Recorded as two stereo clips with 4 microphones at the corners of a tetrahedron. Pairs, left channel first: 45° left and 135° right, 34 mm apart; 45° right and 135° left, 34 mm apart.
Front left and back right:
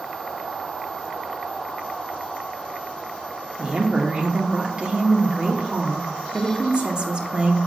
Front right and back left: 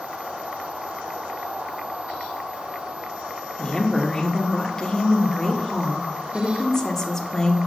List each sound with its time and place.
3.6 s a woman speaking: 105° right, 0.9 m